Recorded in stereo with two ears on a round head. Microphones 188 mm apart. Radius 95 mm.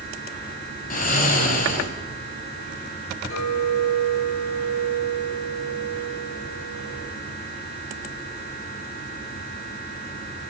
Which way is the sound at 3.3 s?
65° left (ahead or behind).